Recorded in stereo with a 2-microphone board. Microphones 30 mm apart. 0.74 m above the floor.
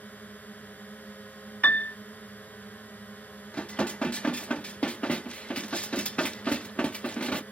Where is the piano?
55° left (ahead or behind).